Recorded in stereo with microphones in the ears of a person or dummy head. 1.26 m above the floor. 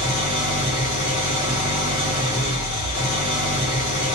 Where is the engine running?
40° left (ahead or behind), 1.4 m.